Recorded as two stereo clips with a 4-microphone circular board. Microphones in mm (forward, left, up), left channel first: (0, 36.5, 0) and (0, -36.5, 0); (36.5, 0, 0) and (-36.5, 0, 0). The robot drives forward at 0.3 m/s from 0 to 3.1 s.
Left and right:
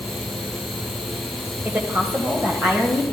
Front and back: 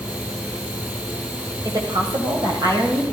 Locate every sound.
1.6 s a woman speaking: 155° right, 2.5 m